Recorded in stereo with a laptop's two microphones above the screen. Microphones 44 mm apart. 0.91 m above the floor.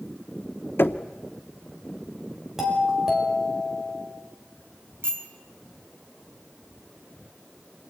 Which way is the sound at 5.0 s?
65° right (ahead or behind).